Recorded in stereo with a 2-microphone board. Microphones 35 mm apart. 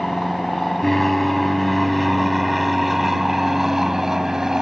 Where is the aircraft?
10° left (ahead or behind); by 4.6 s 10° right (ahead or behind).